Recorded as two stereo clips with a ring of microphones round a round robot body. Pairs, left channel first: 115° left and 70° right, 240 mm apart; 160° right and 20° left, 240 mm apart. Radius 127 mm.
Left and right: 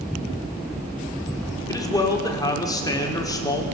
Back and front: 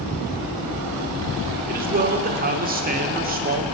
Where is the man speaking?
45° left, 1.4 m.